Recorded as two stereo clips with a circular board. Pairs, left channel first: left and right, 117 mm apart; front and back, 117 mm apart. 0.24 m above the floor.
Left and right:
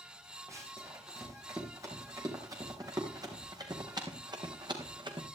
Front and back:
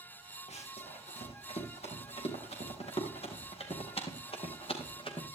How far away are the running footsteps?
About 5 m.